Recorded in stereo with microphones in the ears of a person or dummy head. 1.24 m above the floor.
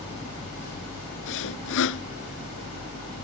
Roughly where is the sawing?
Left.